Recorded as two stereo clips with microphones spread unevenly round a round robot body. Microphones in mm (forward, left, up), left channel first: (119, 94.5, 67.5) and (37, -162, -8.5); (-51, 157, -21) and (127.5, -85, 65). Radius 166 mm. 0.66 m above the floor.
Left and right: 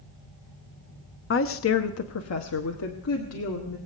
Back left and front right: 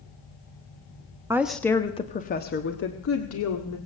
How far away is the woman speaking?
About 0.9 m.